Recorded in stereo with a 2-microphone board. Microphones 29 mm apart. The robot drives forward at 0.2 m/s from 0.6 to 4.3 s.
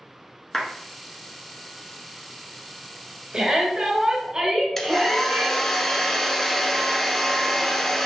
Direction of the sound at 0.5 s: 10° left (ahead or behind).